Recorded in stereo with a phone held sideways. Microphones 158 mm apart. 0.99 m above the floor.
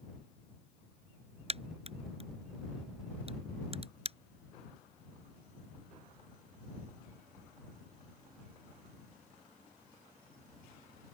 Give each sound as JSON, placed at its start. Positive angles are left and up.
{"t": 1.5, "sound": "a crack", "side_deg": -40}